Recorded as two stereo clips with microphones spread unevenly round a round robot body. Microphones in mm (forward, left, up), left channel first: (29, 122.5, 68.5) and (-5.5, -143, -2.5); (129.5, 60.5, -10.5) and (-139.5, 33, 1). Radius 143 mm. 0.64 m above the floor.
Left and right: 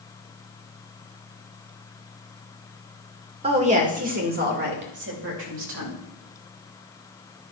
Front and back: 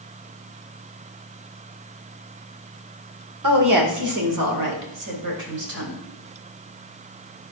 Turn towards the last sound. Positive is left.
turn(degrees=-130)